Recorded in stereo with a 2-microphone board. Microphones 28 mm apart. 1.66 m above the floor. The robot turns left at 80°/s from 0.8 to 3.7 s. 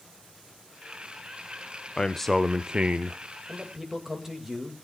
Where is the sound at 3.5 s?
30° right (ahead or behind), 2 m; by 4.8 s 10° right (ahead or behind), 2 m.